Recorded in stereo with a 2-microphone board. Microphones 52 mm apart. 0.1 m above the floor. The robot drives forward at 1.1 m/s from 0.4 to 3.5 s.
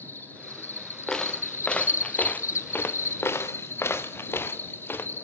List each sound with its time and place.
0.0 s an insect: 35° left (ahead or behind), 2.5 m; by 5.2 s 45° left (ahead or behind), 2 m
1.1 s footsteps: 15° left (ahead or behind), 2.0 m; by 5.1 s 45° left (ahead or behind), 2.5 m